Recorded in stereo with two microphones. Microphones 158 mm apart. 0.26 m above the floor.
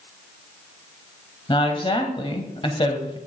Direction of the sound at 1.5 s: 35° left (ahead or behind).